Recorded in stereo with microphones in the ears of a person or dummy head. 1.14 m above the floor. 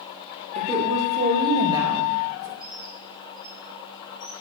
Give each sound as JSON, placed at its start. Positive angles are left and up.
{"t": 0.6, "sound": "a woman speaking", "side_deg": -25, "distance_m": 2.5}
{"t": 2.6, "sound": "a bird", "side_deg": 50, "distance_m": 3.0}